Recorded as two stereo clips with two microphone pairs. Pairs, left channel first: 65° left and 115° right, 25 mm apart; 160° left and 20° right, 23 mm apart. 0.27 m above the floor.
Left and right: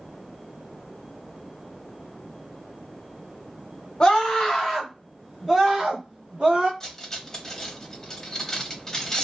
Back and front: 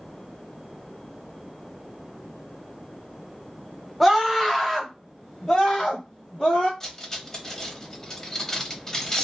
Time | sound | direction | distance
4.0 | a scream | 65° left | 1.1 m
6.8 | cutlery clinking | 120° left | 0.6 m